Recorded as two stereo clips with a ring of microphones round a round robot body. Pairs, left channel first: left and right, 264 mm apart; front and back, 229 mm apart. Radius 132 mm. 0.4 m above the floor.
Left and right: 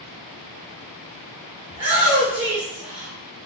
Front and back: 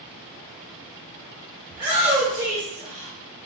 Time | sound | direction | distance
1.7 | a shout | 125° right | 1.6 m